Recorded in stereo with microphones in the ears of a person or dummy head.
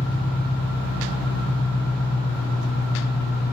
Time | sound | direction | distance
0.0 | an engine running | 55° left (ahead or behind) | 4 m